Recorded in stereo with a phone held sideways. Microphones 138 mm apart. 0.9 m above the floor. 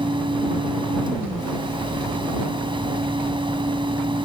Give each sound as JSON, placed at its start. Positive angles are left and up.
{"t": 0.0, "sound": "a fan", "side_deg": -35}